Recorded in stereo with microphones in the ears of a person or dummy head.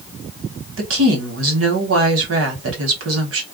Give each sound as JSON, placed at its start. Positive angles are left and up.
{"t": 0.8, "sound": "a woman speaking", "side_deg": -75, "distance_m": 1.4}